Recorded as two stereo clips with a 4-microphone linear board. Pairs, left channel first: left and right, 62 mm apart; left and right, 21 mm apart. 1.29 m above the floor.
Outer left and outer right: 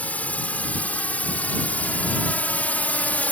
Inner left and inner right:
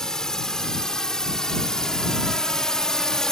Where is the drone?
25° left (ahead or behind).